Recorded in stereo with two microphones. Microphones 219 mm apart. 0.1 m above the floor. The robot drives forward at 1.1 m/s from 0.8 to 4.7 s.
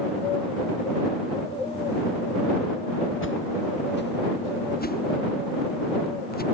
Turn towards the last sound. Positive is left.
turn(degrees=45)  # may be behind; listen again after turning